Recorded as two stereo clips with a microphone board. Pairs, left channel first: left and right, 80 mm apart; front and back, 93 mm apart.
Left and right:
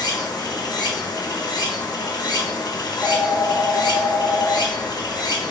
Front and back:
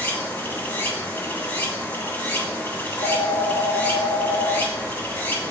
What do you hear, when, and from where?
0.0 s running water: 70° left, 1.9 m
2.8 s a phone ringing: straight ahead, 1.9 m